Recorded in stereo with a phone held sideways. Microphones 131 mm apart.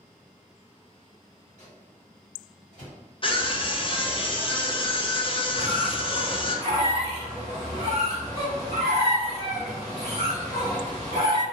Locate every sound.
1.6 s a microwave: 75° left (ahead or behind), 1.8 m
3.2 s a scream: 40° left (ahead or behind), 0.5 m
5.6 s a squeak: 85° left, 1.5 m